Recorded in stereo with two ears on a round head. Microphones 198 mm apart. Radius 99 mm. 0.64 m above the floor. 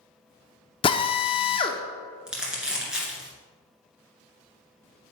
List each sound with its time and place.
0.8 s a drill: 25° left (ahead or behind), 0.6 m
2.3 s crumpling: 5° right (ahead or behind), 2 m